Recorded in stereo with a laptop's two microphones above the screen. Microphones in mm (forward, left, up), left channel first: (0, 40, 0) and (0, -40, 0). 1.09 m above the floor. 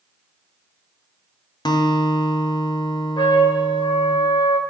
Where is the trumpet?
80° left, 0.9 m.